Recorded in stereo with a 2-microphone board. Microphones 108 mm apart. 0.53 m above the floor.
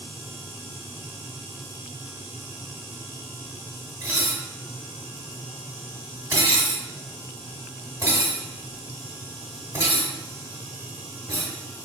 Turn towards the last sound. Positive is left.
turn(degrees=-25)  # may be behind; listen again after turning